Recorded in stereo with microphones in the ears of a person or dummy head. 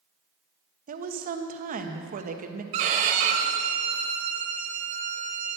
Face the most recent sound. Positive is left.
turn(degrees=-35)  # may be behind; listen again after turning